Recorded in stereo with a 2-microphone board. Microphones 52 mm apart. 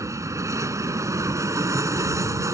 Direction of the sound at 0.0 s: 80° right.